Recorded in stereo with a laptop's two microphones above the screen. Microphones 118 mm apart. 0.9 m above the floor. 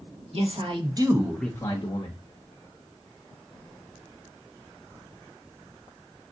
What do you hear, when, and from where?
0.3 s a man speaking: 55° right (ahead or behind), 1.2 m; by 2.2 s 55° left (ahead or behind), 0.9 m